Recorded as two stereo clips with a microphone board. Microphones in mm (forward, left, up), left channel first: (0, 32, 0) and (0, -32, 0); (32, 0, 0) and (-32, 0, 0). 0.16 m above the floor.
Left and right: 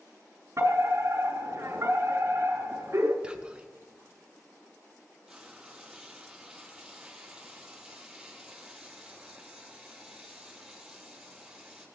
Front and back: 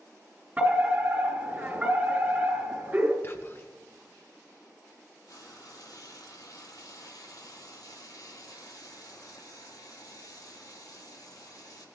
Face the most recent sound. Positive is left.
turn(degrees=-10)